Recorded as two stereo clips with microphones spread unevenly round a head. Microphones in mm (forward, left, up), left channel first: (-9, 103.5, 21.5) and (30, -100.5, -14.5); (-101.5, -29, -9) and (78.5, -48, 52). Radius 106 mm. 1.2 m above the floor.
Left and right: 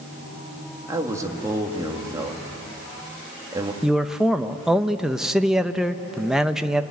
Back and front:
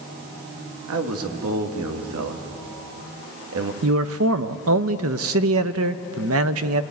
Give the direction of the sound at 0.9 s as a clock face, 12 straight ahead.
12 o'clock.